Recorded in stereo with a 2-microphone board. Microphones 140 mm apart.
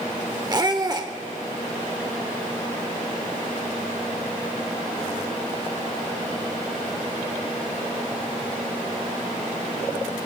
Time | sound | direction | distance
0.5 | a squeak | 30° right (ahead or behind) | 1.0 m